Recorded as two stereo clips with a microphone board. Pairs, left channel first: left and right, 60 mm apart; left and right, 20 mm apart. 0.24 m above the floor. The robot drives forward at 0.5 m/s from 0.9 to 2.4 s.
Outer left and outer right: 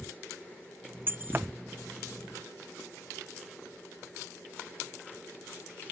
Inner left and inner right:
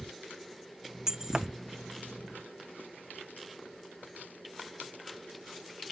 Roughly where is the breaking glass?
Right.